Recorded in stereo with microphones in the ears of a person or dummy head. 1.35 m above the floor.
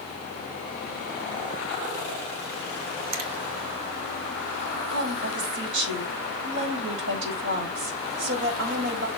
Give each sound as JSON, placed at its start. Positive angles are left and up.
{"t": 3.1, "sound": "a finger snap", "side_deg": -90, "distance_m": 1.7}
{"t": 4.9, "sound": "a woman speaking", "side_deg": -75, "distance_m": 4.5}